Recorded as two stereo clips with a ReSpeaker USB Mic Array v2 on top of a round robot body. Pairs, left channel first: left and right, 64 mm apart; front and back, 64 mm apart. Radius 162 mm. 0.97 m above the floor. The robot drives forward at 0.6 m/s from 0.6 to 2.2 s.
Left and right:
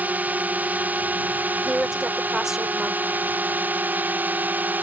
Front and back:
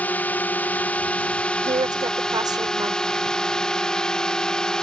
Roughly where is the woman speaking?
Behind.